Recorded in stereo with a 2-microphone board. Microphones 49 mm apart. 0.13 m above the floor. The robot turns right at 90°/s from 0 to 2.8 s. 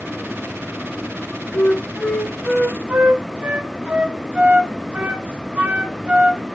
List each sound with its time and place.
1.5 s a flute: 45° left (ahead or behind), 0.5 m; by 6.4 s 30° right (ahead or behind), 0.5 m